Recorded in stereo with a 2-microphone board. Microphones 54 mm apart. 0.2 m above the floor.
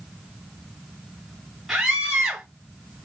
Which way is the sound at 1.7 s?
10° right (ahead or behind).